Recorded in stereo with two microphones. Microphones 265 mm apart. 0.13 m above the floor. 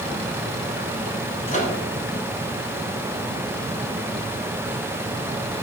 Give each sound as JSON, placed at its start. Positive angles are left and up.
{"t": 1.5, "sound": "a microwave", "side_deg": 30, "distance_m": 1.1}